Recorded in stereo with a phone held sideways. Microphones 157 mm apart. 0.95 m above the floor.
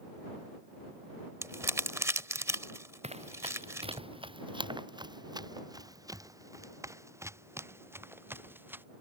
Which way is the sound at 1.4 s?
20° right (ahead or behind).